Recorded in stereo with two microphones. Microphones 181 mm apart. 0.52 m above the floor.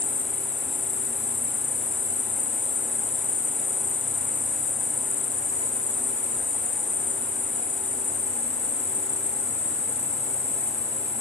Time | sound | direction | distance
0.0 | an insect | 45° left (ahead or behind) | 1.2 m